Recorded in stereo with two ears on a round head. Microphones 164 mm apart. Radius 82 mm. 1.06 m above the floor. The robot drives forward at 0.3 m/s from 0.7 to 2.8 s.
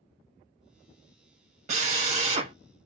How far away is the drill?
About 1.6 m.